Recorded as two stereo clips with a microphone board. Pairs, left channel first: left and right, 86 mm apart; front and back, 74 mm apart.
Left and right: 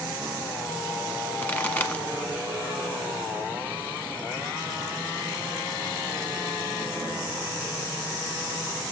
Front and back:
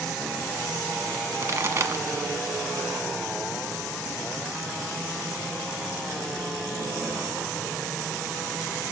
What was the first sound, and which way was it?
A pop, 155° left.